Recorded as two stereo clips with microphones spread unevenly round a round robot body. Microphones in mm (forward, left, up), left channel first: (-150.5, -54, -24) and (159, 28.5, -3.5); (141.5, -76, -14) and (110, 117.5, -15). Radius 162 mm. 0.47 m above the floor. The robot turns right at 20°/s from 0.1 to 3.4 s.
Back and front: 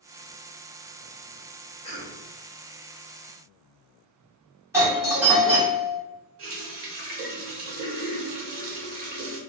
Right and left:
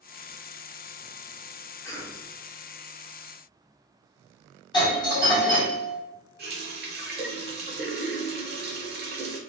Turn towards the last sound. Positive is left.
turn(degrees=65)